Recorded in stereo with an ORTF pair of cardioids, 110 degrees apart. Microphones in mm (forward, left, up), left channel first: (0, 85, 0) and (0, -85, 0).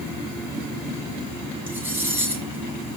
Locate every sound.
1.7 s cutlery clinking: 10° right, 7 m